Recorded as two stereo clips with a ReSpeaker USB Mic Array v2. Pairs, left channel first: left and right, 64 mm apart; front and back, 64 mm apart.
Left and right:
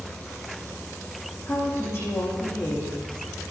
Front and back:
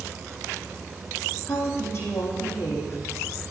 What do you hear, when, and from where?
1.4 s a woman speaking: 50° left, 7 m